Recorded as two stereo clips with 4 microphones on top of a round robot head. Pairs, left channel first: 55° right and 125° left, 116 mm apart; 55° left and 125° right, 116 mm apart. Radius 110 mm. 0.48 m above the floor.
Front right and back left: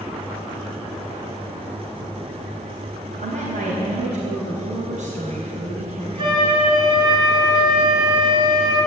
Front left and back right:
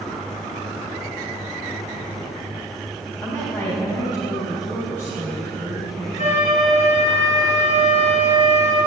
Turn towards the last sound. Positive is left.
turn(degrees=75)